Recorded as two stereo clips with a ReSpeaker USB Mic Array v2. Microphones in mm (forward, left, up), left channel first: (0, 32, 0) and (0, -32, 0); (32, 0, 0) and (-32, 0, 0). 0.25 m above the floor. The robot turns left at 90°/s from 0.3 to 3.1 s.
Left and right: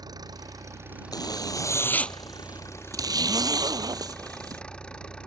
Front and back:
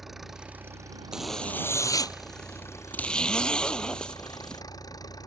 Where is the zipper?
105° left; by 4.6 s 75° right.